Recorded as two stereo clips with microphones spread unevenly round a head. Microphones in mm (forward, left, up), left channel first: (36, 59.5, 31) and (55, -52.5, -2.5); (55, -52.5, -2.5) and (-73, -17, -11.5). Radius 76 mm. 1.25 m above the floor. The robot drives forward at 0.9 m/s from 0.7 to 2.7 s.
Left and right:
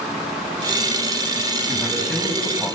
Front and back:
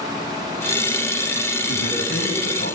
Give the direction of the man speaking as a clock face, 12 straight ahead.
11 o'clock.